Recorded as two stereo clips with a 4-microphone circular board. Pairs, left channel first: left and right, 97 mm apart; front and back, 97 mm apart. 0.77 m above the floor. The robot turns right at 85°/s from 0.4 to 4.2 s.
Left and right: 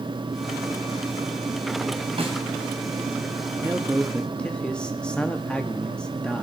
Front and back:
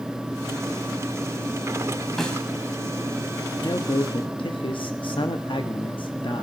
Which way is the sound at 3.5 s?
50° right.